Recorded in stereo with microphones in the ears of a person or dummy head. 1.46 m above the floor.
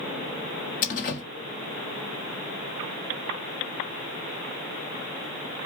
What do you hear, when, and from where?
0.8 s a door slam: 50° left (ahead or behind), 1.4 m